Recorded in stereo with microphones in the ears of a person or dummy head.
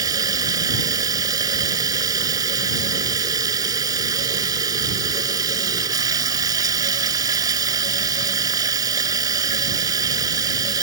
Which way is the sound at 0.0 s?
20° right (ahead or behind).